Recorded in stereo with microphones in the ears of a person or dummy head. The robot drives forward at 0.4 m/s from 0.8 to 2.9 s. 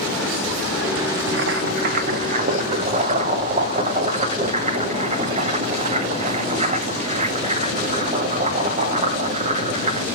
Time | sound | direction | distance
1.3 | boiling | 70° right (ahead or behind) | 0.8 m